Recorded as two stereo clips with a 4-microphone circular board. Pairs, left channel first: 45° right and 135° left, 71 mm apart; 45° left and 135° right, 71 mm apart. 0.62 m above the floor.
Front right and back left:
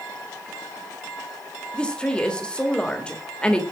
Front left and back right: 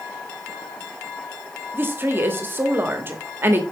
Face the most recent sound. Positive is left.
turn(degrees=-110)